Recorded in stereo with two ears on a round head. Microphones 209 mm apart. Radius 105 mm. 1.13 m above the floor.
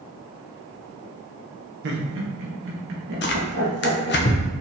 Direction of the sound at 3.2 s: 50° left (ahead or behind).